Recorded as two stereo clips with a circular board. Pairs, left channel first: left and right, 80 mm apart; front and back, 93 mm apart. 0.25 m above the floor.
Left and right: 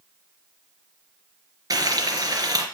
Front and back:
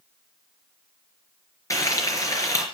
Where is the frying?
50° right, 3.5 m.